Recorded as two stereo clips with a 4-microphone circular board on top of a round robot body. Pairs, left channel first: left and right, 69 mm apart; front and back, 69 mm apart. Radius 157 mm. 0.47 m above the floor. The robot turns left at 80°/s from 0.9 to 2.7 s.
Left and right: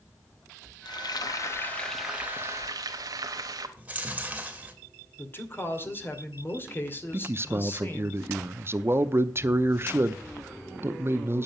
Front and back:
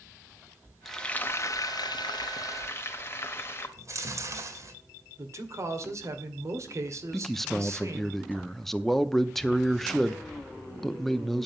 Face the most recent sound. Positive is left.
turn(degrees=-85)